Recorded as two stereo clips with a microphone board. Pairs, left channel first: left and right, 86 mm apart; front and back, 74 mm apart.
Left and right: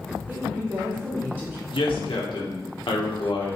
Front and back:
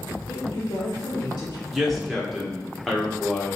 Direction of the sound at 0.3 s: 25° right.